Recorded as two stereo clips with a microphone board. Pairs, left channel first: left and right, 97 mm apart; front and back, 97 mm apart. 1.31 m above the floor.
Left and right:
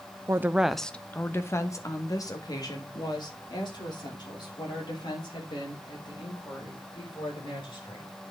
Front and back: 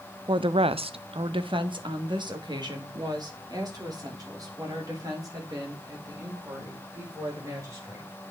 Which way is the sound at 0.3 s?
150° right.